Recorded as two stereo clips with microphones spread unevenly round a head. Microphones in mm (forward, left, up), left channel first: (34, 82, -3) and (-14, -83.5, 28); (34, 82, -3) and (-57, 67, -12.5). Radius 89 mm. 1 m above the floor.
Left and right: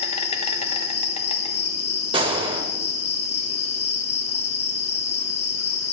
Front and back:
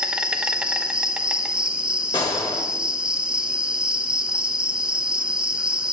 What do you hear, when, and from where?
0.0 s an insect: 115° left, 1.0 m
2.1 s a gunshot: 45° right, 1.4 m